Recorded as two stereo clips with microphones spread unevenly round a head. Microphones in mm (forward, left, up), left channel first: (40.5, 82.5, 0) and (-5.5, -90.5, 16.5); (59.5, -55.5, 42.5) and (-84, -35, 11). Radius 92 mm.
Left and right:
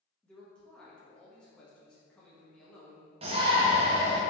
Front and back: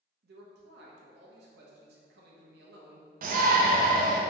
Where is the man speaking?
160° left, 0.7 m.